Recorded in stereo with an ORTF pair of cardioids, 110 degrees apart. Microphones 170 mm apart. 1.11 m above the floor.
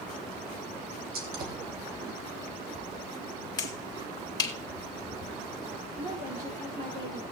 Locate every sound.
1.1 s a gunshot: 65° right, 3 m
3.6 s a finger snap: 25° left, 2.5 m
6.0 s a woman speaking: 55° right, 5 m